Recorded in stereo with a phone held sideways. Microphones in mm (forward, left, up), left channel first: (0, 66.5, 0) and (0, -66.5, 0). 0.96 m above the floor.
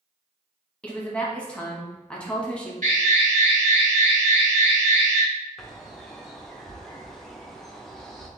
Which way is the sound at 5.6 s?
Centre (ahead or behind).